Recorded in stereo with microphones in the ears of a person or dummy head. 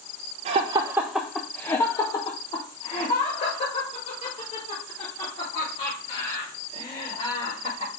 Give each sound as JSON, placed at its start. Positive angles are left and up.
{"t": 0.5, "sound": "laughter", "side_deg": -35, "distance_m": 0.6}